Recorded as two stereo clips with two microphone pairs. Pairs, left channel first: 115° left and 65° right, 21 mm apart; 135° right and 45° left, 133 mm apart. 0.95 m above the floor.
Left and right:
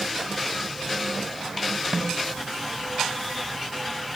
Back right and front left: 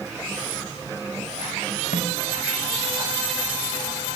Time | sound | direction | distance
1.9 | a snare drum | 120° right | 4 m